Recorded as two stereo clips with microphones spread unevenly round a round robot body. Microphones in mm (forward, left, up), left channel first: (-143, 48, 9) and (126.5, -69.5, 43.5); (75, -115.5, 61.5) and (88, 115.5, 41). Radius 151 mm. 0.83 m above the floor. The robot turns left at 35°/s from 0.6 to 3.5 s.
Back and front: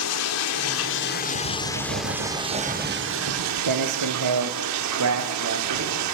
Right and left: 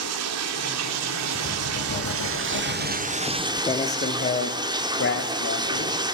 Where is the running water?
115° left, 1.3 m; by 6.2 s 15° left, 1.3 m.